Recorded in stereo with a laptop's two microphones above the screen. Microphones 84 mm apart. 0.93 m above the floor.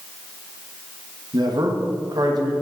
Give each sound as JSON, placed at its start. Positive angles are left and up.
{"t": 1.3, "sound": "a man speaking", "side_deg": -55, "distance_m": 1.5}